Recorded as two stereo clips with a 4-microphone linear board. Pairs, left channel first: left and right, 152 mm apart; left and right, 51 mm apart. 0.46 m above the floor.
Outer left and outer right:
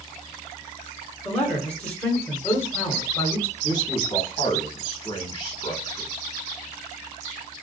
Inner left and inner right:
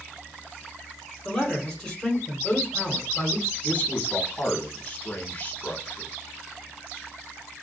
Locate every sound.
1.2 s a man speaking: 10° left (ahead or behind), 1.3 m
3.6 s a man speaking: 30° left (ahead or behind), 1.3 m